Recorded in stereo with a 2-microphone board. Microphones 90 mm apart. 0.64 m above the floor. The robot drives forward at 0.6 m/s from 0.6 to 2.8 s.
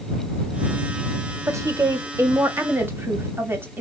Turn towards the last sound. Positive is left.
turn(degrees=-25)  # may be behind; listen again after turning